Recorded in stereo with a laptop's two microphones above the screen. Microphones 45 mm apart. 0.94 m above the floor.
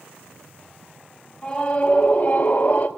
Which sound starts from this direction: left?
A scream, at 1.4 s.